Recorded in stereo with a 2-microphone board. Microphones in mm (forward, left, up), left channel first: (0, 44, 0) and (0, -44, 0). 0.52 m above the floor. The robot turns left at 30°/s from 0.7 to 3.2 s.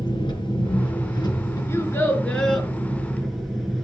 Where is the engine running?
75° left, 4.5 m; by 3.9 s straight ahead, 4.5 m.